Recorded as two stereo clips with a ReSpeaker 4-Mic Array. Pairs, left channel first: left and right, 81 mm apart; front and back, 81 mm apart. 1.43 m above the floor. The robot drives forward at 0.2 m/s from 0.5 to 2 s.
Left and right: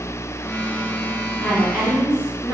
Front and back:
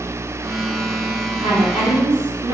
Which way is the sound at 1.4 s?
160° right.